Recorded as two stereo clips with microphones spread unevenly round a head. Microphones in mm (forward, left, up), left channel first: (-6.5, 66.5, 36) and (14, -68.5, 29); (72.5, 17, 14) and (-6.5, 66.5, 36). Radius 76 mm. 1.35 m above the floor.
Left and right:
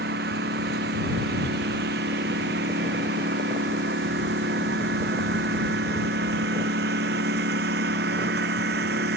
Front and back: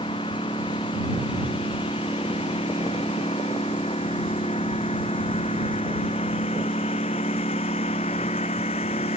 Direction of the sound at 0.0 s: 90° right.